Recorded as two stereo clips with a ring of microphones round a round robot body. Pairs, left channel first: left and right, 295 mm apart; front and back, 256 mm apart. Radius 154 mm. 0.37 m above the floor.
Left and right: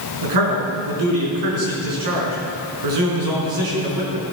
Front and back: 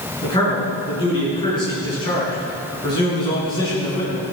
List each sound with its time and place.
0.2 s a man speaking: 75° right, 5.5 m